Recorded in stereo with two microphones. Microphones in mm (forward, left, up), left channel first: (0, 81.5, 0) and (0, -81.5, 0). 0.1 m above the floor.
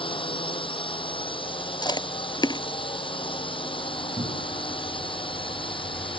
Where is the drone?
30° left (ahead or behind).